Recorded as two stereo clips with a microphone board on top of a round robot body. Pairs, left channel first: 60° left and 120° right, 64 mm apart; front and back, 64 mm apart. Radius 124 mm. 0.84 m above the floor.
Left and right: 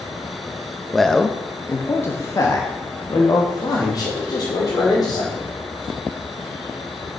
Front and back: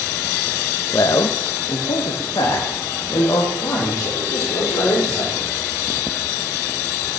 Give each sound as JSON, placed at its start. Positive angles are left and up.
{"t": 0.9, "sound": "a man speaking", "azimuth_deg": -30, "distance_m": 0.8}